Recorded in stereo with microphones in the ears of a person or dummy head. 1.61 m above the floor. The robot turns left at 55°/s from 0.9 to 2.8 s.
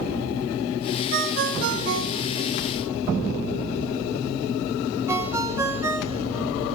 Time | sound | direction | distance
1.1 | a ringtone | 55° right (ahead or behind) | 1.0 m